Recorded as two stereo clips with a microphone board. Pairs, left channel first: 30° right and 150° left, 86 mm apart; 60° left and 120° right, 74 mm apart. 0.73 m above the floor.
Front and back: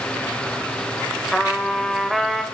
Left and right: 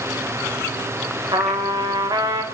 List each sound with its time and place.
1.3 s a trumpet: 115° right, 1.0 m